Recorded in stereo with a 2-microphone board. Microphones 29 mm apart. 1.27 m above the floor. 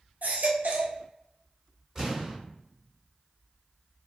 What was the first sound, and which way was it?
A baby crying, 65° right (ahead or behind).